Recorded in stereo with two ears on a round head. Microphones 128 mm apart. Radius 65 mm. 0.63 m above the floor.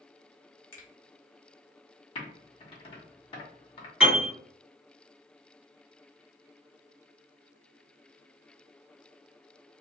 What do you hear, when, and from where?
0.7 s a finger snap: 20° left (ahead or behind), 1.0 m
2.1 s typing on a keyboard: 40° left (ahead or behind), 0.9 m
4.0 s a piano: 5° right (ahead or behind), 1.7 m